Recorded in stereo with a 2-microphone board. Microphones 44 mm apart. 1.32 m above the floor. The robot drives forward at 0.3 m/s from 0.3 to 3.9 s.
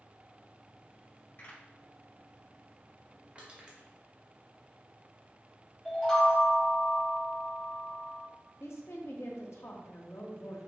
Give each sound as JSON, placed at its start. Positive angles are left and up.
{"t": 1.4, "sound": "a pop", "side_deg": 45, "distance_m": 1.9}
{"t": 3.4, "sound": "crushing", "side_deg": -25, "distance_m": 0.8}
{"t": 5.8, "sound": "a chime", "side_deg": 15, "distance_m": 1.4}
{"t": 8.6, "sound": "a woman speaking", "side_deg": 80, "distance_m": 0.7}